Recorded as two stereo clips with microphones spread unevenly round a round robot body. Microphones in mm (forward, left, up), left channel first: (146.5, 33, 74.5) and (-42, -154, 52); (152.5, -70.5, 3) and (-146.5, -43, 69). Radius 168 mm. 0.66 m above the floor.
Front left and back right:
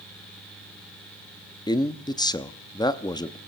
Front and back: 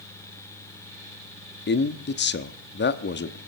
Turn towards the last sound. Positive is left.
turn(degrees=-30)